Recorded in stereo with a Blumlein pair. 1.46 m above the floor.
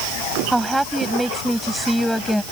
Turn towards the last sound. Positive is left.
turn(degrees=0)